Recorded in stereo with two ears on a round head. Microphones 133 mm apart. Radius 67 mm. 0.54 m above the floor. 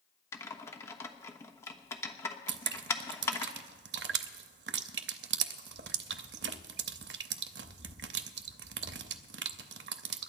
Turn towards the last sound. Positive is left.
turn(degrees=-80)